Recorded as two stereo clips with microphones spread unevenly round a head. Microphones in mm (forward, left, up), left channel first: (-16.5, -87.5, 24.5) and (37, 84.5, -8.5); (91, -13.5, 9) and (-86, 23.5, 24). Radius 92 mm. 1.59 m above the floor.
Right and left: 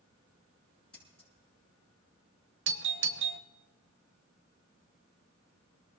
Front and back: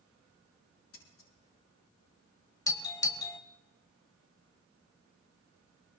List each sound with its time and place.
0.9 s scissors: 20° right, 8 m
2.7 s a doorbell: 60° left, 1.2 m